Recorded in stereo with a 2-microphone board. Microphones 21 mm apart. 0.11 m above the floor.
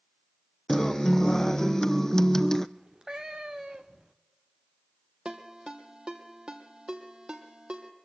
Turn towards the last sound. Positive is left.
turn(degrees=-45)  # may be behind; listen again after turning